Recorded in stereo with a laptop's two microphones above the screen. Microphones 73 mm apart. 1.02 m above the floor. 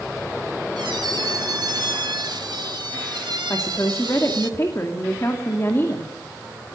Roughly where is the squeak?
Right.